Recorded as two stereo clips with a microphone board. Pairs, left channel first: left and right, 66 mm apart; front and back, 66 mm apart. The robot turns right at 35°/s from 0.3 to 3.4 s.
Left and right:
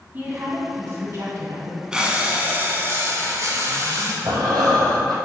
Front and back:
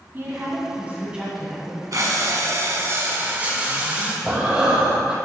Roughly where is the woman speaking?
Behind right.